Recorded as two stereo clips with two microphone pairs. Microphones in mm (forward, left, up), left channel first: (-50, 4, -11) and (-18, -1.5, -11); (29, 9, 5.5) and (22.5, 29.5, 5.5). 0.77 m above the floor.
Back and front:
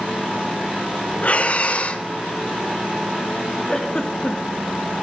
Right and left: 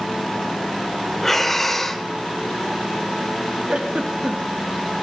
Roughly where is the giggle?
Left.